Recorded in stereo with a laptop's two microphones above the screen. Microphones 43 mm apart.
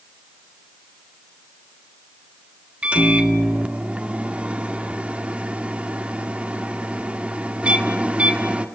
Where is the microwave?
30° right (ahead or behind), 1.8 m.